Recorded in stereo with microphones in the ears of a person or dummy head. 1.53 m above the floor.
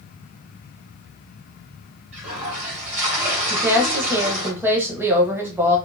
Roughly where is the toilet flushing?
Right.